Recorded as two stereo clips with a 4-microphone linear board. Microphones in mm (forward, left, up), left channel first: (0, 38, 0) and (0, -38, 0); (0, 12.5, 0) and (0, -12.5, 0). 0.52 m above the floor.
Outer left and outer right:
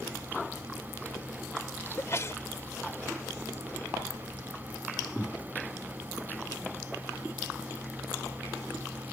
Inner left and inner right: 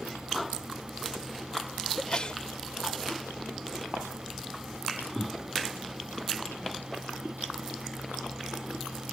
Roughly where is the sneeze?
Left.